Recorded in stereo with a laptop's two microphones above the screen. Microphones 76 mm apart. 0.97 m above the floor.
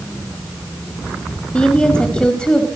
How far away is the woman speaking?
About 1.9 m.